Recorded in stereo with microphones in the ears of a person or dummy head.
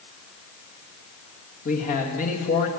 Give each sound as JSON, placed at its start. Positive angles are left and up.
{"t": 1.6, "sound": "a man speaking", "side_deg": 45, "distance_m": 1.9}